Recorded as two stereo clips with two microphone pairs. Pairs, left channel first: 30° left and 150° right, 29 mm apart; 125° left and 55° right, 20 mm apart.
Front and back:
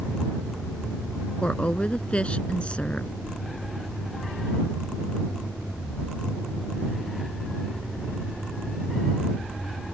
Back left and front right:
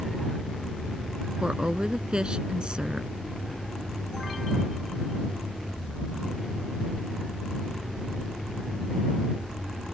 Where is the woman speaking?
20° right.